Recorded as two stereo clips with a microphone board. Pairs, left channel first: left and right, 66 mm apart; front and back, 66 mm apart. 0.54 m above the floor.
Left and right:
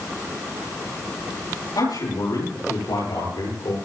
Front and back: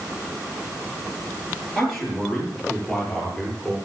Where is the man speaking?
90° left, 9 m; by 3.8 s 85° left, 10 m.